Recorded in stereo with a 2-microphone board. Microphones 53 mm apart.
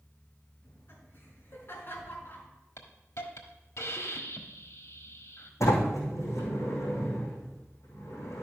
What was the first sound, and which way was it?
Laughter, 45° left (ahead or behind).